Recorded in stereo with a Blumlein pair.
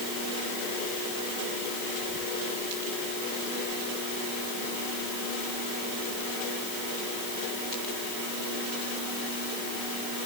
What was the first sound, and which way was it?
Only background noise.